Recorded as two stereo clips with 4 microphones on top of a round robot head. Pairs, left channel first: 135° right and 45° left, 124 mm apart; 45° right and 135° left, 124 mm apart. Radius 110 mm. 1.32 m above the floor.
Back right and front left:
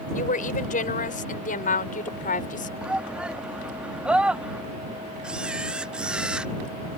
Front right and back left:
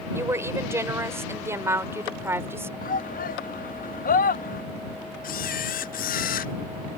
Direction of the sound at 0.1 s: 155° right.